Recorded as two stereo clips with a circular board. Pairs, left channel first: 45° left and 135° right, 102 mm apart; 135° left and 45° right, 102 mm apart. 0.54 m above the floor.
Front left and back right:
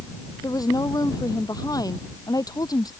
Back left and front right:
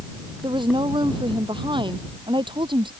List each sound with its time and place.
0.4 s a woman speaking: 5° right